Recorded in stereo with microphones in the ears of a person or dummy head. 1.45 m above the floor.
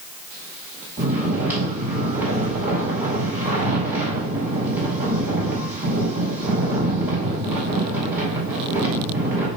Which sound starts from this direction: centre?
Snoring, at 1.0 s.